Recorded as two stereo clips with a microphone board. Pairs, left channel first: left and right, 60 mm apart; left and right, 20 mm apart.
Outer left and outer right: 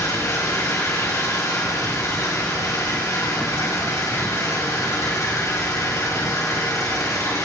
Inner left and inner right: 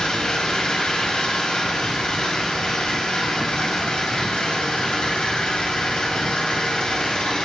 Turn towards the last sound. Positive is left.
turn(degrees=65)  # may be behind; listen again after turning